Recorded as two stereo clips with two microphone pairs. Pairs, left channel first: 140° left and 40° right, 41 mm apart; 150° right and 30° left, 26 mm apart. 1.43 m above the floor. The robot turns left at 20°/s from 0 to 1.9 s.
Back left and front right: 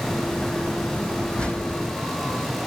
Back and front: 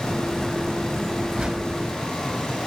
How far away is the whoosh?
About 6 m.